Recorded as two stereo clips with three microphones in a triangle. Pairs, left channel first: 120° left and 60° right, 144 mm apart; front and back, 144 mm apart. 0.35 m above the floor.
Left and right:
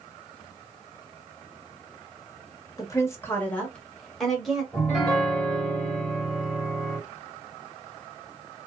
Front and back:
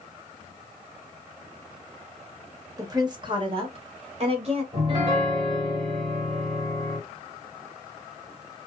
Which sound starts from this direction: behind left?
A woman speaking, at 2.8 s.